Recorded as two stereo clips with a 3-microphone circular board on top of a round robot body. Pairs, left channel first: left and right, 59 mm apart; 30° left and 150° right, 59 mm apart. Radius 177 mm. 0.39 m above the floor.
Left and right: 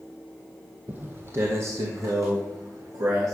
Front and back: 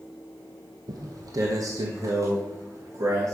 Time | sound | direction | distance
0.9 | footsteps | 155° right | 0.8 m